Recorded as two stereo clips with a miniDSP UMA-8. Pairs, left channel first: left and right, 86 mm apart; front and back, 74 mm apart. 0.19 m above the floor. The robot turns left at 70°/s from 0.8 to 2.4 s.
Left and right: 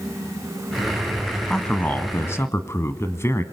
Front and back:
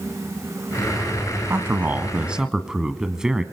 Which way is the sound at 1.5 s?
170° left.